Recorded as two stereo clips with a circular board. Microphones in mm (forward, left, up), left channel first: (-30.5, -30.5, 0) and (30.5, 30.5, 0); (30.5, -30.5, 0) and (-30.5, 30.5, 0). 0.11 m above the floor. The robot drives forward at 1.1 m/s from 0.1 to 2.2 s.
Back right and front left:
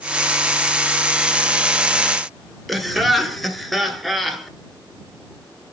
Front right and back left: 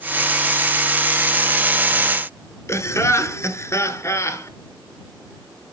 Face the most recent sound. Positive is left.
turn(degrees=-45)